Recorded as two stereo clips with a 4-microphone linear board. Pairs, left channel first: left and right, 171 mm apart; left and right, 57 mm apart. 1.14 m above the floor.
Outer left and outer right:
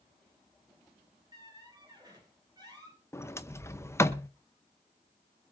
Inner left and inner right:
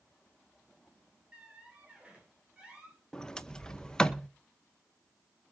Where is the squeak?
25° right (ahead or behind), 5 m.